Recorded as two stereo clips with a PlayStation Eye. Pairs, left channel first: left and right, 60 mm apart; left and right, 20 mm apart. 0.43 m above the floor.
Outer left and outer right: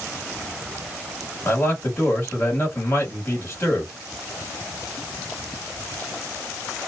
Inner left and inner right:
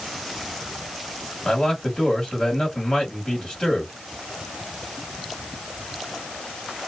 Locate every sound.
1.4 s a man speaking: 35° left (ahead or behind), 1.5 m